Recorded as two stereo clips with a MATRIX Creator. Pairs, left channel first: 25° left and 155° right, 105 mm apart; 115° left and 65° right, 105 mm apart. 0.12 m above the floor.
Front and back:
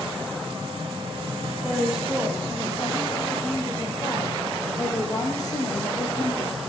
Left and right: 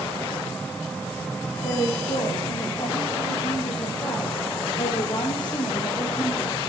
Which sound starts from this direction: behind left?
A woman speaking, at 1.6 s.